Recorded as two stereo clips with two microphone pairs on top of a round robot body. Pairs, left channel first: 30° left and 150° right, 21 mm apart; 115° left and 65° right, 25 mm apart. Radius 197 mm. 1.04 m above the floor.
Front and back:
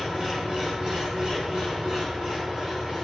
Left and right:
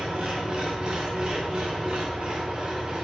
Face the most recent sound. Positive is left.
turn(degrees=-110)